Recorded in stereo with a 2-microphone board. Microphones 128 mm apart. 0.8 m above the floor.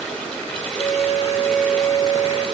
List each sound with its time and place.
0.8 s a flute: 50° left (ahead or behind), 5 m